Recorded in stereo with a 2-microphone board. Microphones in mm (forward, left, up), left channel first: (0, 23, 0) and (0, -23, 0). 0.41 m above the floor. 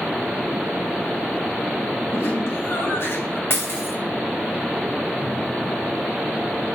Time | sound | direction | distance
2.1 | laughter | 70° left (ahead or behind) | 3.5 m
3.5 | breaking glass | 55° left (ahead or behind) | 1.8 m